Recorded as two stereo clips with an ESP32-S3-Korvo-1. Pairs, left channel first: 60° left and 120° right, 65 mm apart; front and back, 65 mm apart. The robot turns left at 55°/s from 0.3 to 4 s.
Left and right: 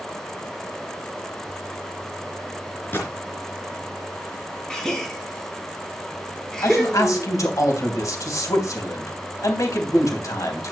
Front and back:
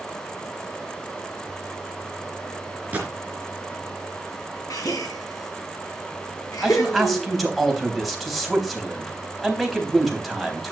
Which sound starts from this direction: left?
A man speaking, at 6.6 s.